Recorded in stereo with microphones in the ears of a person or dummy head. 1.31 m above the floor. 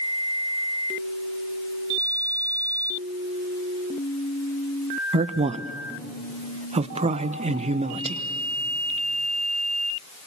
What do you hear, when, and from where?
5.1 s a man speaking: 35° right (ahead or behind), 1.0 m